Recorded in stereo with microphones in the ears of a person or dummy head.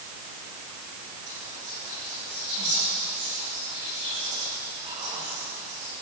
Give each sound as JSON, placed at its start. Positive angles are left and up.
{"t": 1.3, "sound": "whispering", "side_deg": -30, "distance_m": 5.0}